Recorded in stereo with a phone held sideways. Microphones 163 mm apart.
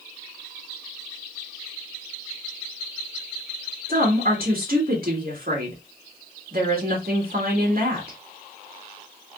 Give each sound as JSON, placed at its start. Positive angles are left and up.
{"t": 3.9, "sound": "a woman speaking", "side_deg": -65, "distance_m": 1.8}